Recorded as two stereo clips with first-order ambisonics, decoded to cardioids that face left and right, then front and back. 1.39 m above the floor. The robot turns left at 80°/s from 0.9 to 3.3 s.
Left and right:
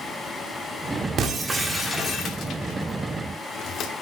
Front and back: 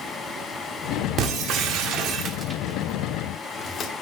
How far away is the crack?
No crack in this recording.